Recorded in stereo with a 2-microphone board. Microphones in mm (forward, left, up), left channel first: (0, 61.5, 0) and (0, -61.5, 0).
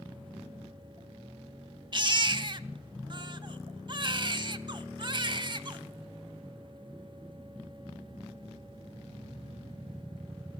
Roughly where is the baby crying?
Right.